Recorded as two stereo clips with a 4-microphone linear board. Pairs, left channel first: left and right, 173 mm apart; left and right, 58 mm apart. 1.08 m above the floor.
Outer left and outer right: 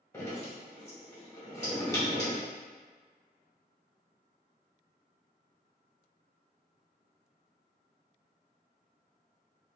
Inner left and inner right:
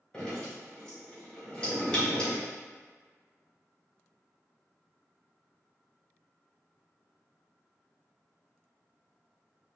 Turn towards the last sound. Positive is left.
turn(degrees=15)  # may be behind; listen again after turning